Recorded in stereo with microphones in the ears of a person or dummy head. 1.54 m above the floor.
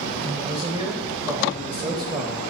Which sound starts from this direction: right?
A man speaking, at 0.2 s.